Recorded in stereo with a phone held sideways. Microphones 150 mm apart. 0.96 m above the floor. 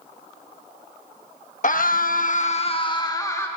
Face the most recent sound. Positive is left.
turn(degrees=15)  # may be behind; listen again after turning